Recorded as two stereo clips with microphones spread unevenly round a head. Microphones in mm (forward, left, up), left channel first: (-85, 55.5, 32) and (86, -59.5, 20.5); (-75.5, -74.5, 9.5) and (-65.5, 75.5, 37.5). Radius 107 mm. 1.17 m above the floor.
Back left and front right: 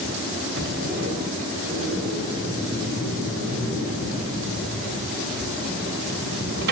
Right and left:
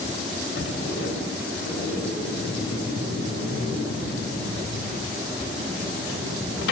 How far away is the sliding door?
About 2.0 m.